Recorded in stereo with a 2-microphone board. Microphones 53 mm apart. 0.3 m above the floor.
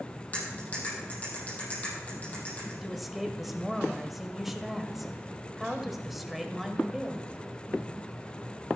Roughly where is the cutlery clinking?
Left.